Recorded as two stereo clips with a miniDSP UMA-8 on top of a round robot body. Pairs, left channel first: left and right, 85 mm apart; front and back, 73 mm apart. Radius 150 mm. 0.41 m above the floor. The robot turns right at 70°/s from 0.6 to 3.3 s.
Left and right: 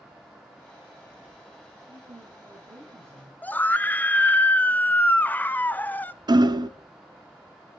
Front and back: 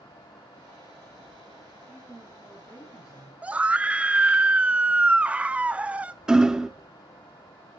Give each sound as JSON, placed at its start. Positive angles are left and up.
{"t": 1.9, "sound": "a woman speaking", "azimuth_deg": -120, "distance_m": 3.5}
{"t": 3.4, "sound": "a scream", "azimuth_deg": 130, "distance_m": 0.8}
{"t": 6.3, "sound": "hammering", "azimuth_deg": -105, "distance_m": 0.9}